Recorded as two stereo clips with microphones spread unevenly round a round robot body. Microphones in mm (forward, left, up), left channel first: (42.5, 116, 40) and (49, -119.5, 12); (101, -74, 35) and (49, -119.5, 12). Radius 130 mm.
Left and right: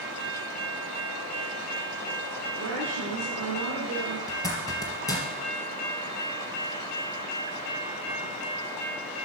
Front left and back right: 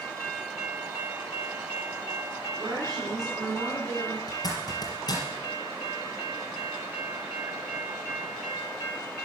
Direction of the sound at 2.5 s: 130° right.